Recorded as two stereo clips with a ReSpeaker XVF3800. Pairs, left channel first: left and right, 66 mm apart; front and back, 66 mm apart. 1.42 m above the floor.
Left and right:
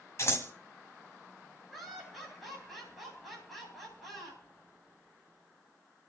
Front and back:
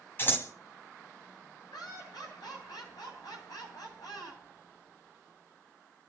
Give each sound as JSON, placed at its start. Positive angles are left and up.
{"t": 0.2, "sound": "scissors", "azimuth_deg": 50, "distance_m": 2.5}
{"t": 1.7, "sound": "laughter", "azimuth_deg": 0, "distance_m": 9.0}